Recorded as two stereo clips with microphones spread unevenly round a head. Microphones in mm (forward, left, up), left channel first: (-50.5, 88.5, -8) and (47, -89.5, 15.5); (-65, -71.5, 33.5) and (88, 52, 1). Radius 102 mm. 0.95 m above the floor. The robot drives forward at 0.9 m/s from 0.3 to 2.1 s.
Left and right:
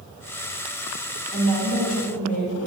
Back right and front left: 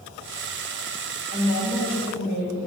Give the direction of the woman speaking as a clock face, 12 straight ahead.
6 o'clock.